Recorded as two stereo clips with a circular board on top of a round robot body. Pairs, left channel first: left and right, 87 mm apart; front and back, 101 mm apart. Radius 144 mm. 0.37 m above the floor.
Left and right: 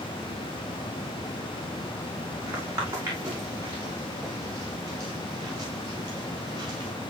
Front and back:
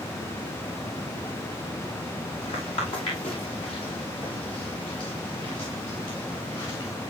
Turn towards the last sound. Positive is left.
turn(degrees=-45)